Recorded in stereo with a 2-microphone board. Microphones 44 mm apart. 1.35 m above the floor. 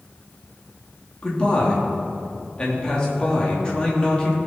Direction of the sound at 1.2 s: 25° left (ahead or behind).